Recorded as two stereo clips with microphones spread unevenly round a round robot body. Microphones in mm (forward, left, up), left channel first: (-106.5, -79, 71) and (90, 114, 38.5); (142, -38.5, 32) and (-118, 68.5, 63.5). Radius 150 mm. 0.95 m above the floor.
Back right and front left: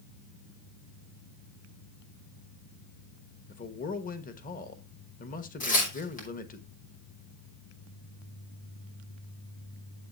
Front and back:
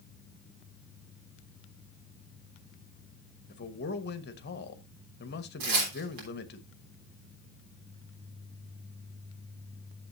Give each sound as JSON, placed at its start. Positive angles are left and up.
{"t": 3.5, "sound": "a man speaking", "azimuth_deg": -75, "distance_m": 1.2}
{"t": 5.6, "sound": "tearing paper", "azimuth_deg": 160, "distance_m": 3.5}